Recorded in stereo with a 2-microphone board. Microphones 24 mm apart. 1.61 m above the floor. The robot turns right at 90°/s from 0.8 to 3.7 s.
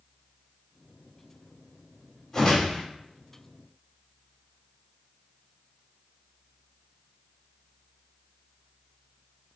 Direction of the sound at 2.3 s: 20° left.